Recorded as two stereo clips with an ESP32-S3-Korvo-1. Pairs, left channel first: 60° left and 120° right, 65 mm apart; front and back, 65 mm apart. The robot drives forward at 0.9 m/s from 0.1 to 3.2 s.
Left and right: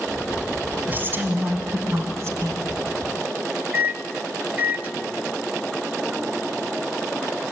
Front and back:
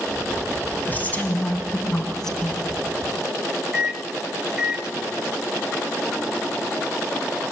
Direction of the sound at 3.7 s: 120° right.